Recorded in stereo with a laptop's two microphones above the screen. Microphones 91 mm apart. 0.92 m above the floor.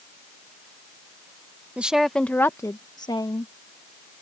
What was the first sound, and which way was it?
A woman speaking, 15° right (ahead or behind).